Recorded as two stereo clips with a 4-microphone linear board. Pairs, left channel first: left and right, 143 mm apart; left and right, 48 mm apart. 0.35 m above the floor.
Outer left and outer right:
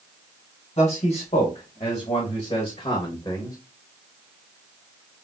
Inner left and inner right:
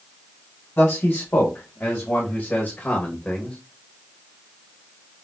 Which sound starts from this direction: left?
A man speaking, at 0.8 s.